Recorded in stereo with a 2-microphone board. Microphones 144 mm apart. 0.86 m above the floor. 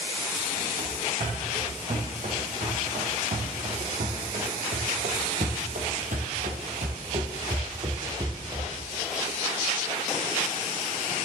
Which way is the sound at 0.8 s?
50° right (ahead or behind).